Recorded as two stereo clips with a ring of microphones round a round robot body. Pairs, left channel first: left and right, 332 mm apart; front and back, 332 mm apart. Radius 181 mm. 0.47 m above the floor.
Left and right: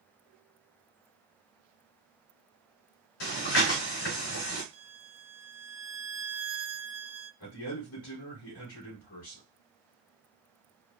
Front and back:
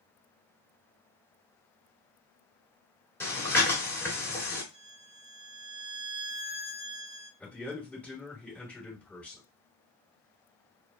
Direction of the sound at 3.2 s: 85° left.